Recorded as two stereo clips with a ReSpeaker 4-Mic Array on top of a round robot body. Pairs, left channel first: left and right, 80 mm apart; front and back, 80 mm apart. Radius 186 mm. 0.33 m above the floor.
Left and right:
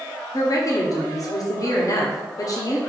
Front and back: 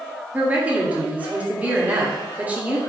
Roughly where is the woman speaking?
Behind left.